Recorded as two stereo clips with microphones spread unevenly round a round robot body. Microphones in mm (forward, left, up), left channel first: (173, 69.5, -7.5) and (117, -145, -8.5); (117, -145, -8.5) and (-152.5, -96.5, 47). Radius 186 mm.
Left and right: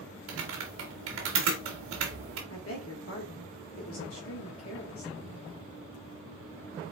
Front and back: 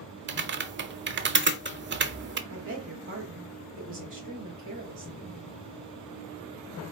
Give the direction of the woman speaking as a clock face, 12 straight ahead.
8 o'clock.